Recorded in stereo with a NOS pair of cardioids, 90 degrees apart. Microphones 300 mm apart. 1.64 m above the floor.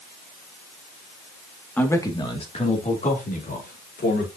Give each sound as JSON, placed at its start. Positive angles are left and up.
{"t": 1.8, "sound": "a man speaking", "azimuth_deg": 5, "distance_m": 2.0}